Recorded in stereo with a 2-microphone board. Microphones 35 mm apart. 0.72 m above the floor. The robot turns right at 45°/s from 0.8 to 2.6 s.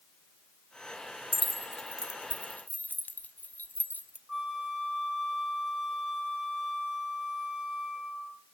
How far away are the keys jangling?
About 0.8 m.